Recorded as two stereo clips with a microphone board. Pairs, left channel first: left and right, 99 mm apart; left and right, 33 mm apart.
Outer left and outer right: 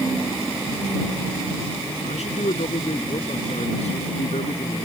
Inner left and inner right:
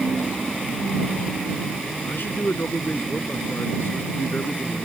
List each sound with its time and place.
2.0 s a man speaking: 85° left